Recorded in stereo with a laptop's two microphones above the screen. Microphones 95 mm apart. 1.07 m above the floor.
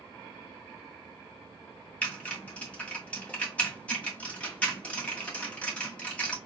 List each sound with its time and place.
2.0 s typing on a keyboard: 10° left (ahead or behind), 1.7 m